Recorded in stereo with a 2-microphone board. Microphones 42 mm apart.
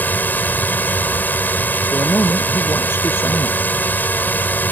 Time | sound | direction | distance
0.0 | a drone | 45° left (ahead or behind) | ?
1.9 | a man speaking | 70° left (ahead or behind) | ?